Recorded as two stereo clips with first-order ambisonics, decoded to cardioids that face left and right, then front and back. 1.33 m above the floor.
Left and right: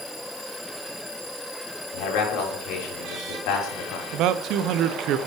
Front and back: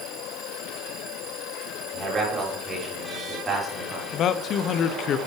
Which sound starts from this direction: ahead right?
A man speaking, at 4.1 s.